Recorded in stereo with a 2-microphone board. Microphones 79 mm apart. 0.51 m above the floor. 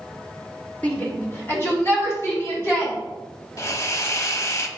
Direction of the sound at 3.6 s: 45° left (ahead or behind).